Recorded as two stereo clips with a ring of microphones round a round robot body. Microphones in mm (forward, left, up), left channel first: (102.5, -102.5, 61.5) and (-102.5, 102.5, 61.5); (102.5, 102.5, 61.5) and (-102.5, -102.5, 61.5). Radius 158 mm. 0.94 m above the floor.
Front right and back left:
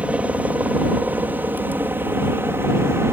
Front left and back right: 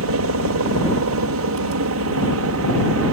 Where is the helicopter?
140° right; by 3.1 s 145° right.